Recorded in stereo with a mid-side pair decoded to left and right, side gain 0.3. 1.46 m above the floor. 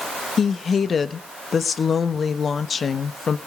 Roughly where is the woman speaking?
Ahead left.